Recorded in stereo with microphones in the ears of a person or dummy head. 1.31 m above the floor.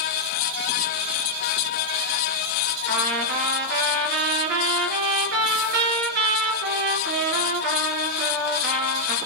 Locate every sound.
2.9 s a trumpet: 60° right (ahead or behind), 4 m